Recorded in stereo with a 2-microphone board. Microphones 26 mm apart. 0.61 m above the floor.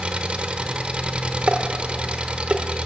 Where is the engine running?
45° right (ahead or behind), 1.0 m.